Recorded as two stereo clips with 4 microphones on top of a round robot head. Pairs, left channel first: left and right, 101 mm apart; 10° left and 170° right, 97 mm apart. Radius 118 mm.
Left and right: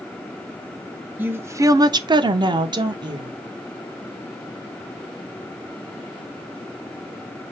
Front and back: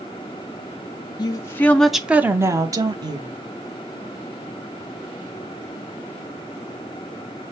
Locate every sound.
1.2 s a woman speaking: 20° right, 0.6 m; by 3.4 s 135° right, 0.9 m